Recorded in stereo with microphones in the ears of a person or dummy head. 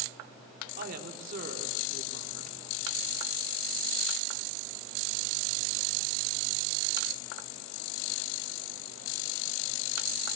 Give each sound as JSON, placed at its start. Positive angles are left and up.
{"t": 0.8, "sound": "a woman speaking", "side_deg": -50, "distance_m": 3.5}